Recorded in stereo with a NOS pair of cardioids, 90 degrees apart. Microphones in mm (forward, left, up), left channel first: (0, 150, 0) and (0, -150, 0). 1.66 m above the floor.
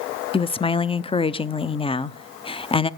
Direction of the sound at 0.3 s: 20° left.